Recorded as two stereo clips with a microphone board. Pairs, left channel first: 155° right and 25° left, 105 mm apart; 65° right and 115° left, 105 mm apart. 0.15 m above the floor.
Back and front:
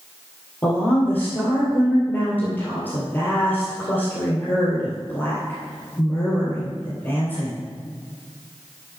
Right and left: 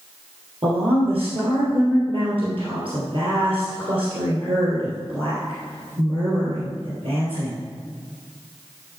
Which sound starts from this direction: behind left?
A woman speaking, at 0.6 s.